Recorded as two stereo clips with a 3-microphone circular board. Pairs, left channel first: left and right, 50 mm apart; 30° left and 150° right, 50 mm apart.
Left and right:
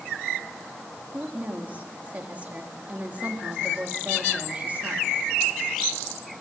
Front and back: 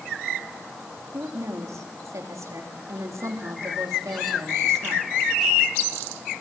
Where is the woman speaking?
150° right, 4 m.